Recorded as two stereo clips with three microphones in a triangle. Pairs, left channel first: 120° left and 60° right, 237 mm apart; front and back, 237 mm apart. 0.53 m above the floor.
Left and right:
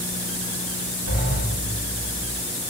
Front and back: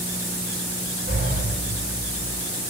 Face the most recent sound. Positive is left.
turn(degrees=140)